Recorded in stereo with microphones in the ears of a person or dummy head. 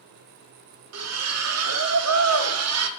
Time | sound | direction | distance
0.9 | a splash | 85° right | 0.9 m